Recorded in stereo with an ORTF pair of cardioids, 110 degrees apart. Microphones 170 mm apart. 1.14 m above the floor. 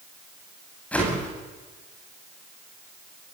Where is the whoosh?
10° left, 9.5 m.